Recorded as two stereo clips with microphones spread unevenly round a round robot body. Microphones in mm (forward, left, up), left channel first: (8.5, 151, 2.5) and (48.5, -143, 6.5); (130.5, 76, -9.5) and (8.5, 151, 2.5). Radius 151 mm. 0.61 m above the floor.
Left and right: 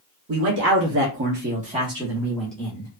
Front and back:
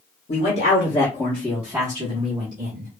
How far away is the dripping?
I don't hear dripping.